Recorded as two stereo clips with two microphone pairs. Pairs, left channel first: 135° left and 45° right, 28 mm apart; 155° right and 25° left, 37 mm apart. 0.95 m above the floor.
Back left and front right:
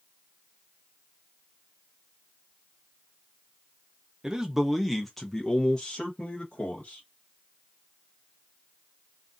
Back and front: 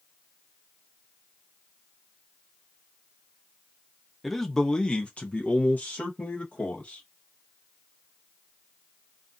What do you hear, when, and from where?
4.2 s a man speaking: 70° right, 0.7 m; by 7.0 s 175° left, 1.6 m